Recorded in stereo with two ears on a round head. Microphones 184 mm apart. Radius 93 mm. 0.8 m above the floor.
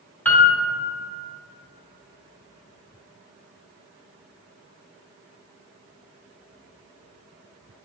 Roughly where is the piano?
Centre.